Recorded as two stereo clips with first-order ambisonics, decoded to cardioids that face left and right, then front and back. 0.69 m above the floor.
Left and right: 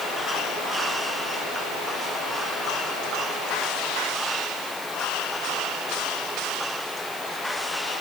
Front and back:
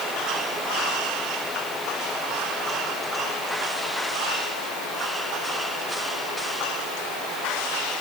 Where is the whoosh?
No whoosh in this recording.